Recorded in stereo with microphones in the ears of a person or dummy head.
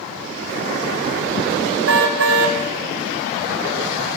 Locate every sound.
1.9 s a car horn: 75° right (ahead or behind), 3.5 m